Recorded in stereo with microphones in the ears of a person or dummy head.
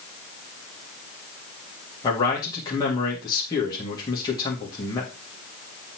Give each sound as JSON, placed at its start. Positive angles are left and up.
{"t": 2.0, "sound": "a man speaking", "side_deg": 20, "distance_m": 2.0}